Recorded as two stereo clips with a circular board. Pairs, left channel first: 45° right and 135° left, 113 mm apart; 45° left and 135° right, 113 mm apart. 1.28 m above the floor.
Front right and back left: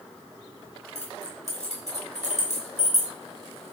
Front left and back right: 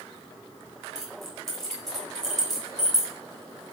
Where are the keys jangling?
40° right, 4.5 m.